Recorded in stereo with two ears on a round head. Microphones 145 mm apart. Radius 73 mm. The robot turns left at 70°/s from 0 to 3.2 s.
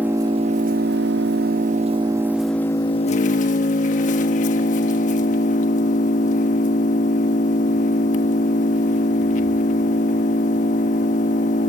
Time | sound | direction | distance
0.0 | an engine running | 10° right | 1.4 m